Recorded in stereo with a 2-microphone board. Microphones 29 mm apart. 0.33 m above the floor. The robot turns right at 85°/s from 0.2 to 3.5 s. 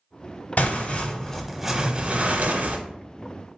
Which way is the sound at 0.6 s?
95° left.